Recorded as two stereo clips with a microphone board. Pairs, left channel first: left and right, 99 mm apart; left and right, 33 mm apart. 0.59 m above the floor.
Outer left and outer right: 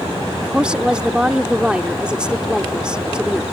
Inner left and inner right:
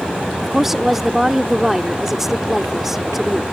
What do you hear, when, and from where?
0.4 s a woman speaking: 10° right (ahead or behind)